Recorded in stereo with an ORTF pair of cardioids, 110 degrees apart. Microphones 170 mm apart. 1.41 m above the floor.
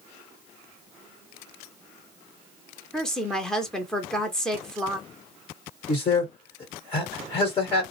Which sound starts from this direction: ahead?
A woman speaking, at 2.9 s.